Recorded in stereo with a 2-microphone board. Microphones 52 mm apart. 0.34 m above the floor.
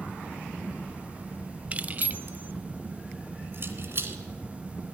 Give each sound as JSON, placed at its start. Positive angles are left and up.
{"t": 1.7, "sound": "keys jangling", "side_deg": -30, "distance_m": 1.0}